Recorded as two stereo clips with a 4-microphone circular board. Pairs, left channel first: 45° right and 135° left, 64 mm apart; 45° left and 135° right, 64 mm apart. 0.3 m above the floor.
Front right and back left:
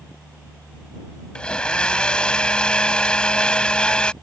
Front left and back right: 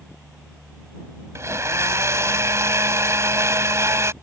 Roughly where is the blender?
Behind right.